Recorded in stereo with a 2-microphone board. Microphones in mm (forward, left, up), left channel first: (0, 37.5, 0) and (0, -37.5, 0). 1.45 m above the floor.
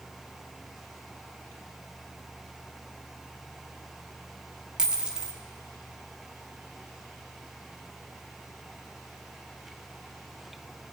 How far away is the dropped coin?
About 1.0 m.